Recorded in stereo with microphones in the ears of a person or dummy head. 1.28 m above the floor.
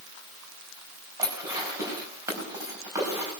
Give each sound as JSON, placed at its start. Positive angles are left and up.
{"t": 1.2, "sound": "dishes clattering", "side_deg": -15, "distance_m": 4.5}